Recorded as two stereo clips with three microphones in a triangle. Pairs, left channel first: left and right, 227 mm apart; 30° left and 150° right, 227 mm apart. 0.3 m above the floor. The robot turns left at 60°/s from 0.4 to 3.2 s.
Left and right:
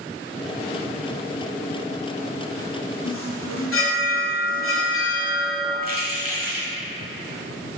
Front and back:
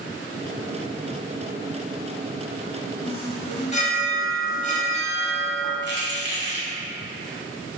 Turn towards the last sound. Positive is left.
turn(degrees=-130)